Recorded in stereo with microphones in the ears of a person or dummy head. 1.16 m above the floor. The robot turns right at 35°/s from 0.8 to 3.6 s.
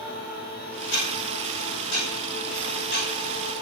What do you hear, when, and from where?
0.8 s ticking: 65° left, 5.5 m; by 3.5 s 160° left, 5.5 m